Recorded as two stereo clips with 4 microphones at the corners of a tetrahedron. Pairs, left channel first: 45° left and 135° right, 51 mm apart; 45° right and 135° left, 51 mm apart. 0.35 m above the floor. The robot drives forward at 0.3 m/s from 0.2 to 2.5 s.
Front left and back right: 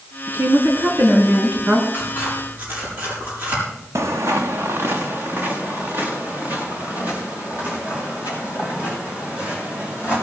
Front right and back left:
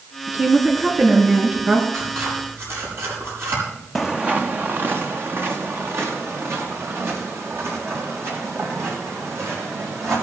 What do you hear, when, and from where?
0.3 s a woman speaking: 170° right, 4 m
1.9 s scissors: 170° left, 7 m
4.0 s footsteps: 135° right, 0.8 m; by 10.1 s 165° left, 10 m